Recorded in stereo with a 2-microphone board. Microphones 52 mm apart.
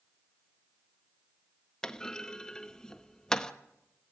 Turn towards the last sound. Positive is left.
turn(degrees=15)  # may be behind; listen again after turning